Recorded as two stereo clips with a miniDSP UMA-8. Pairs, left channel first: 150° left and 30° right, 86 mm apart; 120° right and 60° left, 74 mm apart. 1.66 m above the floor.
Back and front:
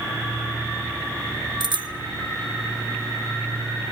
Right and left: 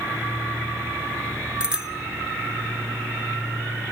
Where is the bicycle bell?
15° right, 2.5 m.